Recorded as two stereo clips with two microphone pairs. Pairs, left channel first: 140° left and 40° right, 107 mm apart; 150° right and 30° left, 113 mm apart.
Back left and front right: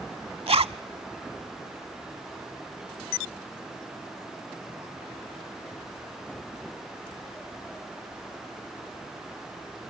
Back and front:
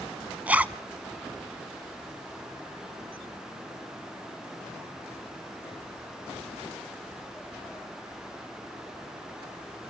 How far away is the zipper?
About 0.5 m.